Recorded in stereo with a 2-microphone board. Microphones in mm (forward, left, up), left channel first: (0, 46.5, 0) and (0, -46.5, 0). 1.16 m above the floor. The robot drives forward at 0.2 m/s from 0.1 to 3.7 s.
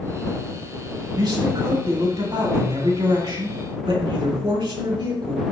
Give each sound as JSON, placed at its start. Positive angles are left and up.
{"t": 1.1, "sound": "a man speaking", "side_deg": -65, "distance_m": 3.5}